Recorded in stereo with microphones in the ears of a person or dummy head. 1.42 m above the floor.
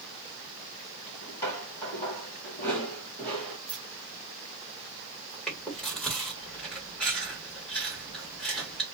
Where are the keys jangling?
5° right (ahead or behind), 1.0 m.